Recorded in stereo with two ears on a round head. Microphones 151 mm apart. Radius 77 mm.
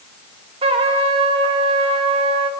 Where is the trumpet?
35° right (ahead or behind), 2 m.